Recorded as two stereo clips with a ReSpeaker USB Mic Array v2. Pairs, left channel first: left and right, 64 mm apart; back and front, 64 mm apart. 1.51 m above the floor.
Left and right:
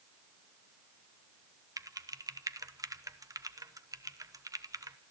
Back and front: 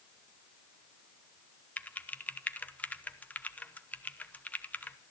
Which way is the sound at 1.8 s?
115° right.